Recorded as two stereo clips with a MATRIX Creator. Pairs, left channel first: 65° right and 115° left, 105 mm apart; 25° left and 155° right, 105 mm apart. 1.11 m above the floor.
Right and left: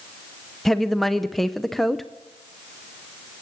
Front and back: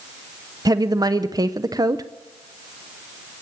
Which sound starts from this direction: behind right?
A woman speaking, at 0.7 s.